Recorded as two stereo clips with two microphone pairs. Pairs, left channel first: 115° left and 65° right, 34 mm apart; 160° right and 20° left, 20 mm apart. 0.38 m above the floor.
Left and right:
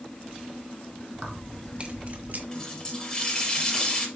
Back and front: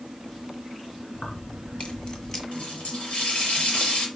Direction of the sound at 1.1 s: 135° right.